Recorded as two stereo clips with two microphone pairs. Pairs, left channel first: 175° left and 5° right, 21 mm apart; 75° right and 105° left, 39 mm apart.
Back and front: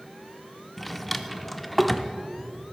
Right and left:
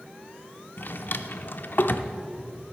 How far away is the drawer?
About 0.6 m.